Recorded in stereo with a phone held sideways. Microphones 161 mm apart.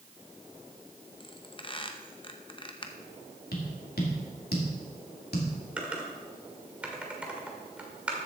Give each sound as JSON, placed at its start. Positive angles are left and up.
{"t": 1.2, "sound": "a squeak", "side_deg": 35, "distance_m": 0.8}
{"t": 3.5, "sound": "tapping", "side_deg": 80, "distance_m": 2.5}
{"t": 5.8, "sound": "typing on a keyboard", "side_deg": -10, "distance_m": 1.8}